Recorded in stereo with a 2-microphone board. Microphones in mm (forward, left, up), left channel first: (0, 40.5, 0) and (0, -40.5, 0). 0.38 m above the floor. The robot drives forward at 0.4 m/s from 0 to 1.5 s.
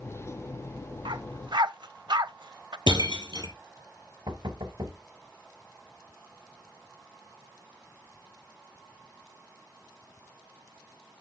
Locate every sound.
1.1 s a dog barking: 80° right, 0.5 m; by 2.8 s 70° right (ahead or behind), 0.5 m
2.9 s breaking glass: 70° right (ahead or behind), 1.9 m
4.3 s knocking: 65° right (ahead or behind), 1.2 m